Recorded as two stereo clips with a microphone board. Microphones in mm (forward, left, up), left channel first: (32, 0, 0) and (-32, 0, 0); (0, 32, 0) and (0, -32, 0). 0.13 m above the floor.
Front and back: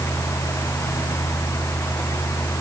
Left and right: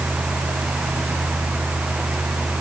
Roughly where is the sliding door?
No sliding door in this recording.